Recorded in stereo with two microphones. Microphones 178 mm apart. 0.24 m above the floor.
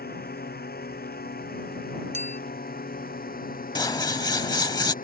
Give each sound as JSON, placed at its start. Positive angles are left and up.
{"t": 0.0, "sound": "a drone", "side_deg": 60}
{"t": 2.1, "sound": "a clink", "side_deg": -40}
{"t": 3.8, "sound": "scissors", "side_deg": 20}